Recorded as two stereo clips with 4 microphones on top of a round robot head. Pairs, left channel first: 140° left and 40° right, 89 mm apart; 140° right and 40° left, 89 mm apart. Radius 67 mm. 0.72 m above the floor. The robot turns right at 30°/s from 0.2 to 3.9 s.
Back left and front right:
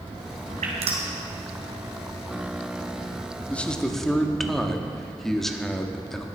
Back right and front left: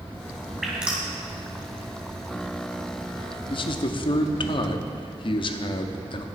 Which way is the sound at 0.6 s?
50° right.